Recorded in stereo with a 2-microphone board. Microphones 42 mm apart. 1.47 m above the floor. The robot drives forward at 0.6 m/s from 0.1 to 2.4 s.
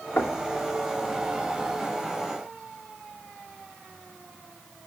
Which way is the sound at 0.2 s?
65° left (ahead or behind).